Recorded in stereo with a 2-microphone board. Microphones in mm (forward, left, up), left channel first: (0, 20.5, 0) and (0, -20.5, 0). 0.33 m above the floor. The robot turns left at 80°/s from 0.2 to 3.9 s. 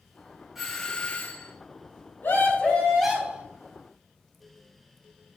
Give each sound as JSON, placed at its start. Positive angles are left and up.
{"t": 0.6, "sound": "a doorbell", "azimuth_deg": -170, "distance_m": 3.5}
{"t": 2.2, "sound": "a scream", "azimuth_deg": 70, "distance_m": 4.5}